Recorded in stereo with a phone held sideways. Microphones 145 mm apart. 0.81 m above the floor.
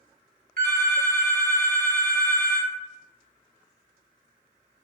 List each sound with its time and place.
0.6 s a phone ringing: 70° right (ahead or behind), 1.1 m